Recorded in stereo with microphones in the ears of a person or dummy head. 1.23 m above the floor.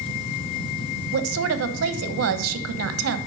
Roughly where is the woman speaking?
Right.